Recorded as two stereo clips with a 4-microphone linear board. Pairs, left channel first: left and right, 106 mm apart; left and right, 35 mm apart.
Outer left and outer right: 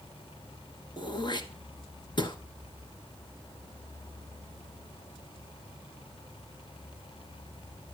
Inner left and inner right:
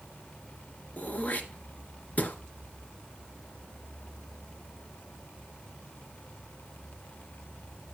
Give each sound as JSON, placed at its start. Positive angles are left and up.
{"t": 1.0, "sound": "throat clearing", "side_deg": 45, "distance_m": 1.1}